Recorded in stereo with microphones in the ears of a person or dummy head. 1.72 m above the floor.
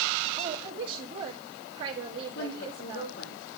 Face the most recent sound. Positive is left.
turn(degrees=55)  # may be behind; listen again after turning